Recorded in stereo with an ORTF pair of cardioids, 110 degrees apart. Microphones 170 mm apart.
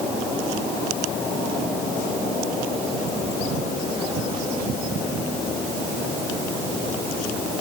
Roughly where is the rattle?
I don't hear a rattle.